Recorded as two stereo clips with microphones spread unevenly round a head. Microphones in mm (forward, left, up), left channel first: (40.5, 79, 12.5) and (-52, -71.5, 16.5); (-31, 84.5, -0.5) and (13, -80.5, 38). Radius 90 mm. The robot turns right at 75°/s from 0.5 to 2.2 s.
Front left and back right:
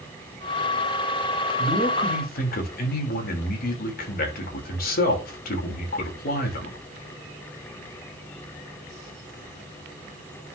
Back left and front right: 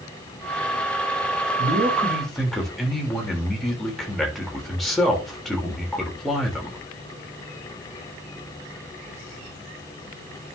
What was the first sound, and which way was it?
A man speaking, 30° right.